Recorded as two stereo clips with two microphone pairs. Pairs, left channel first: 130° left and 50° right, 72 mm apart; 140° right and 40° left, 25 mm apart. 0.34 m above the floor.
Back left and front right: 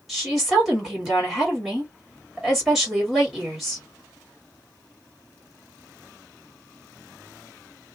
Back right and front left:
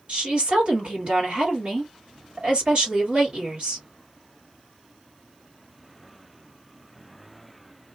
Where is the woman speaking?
35° left, 1.9 m.